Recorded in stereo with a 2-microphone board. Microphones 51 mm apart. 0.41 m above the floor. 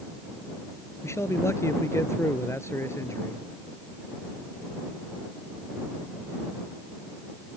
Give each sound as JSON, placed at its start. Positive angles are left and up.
{"t": 1.0, "sound": "a man speaking", "side_deg": 65}